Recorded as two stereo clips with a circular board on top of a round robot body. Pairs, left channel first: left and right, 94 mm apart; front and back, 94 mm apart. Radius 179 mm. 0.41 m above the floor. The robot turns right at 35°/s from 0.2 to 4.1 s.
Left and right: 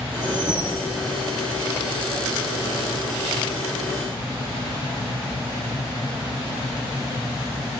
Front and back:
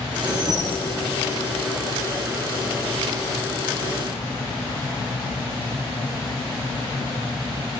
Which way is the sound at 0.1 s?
140° right.